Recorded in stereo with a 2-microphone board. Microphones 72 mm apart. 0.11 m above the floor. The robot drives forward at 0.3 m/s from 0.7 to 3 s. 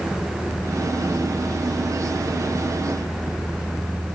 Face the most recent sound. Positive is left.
No sound to turn to.